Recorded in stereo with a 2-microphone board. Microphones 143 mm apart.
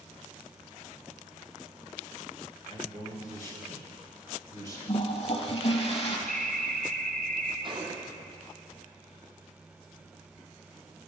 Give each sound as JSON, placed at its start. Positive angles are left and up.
{"t": 2.7, "sound": "a man speaking", "side_deg": -40, "distance_m": 2.5}
{"t": 4.9, "sound": "a toilet flushing", "side_deg": 40, "distance_m": 1.2}
{"t": 6.3, "sound": "an alarm", "side_deg": 15, "distance_m": 1.6}
{"t": 7.6, "sound": "a gunshot", "side_deg": -35, "distance_m": 1.0}